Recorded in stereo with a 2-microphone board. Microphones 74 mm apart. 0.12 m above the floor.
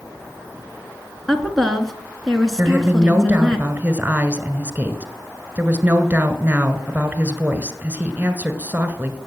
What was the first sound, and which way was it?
A woman speaking, 5° left (ahead or behind).